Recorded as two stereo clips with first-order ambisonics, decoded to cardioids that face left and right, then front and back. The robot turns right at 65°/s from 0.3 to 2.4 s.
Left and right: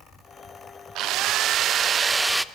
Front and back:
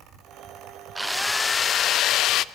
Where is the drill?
100° right, 0.6 m; by 2.5 s 5° right, 0.6 m.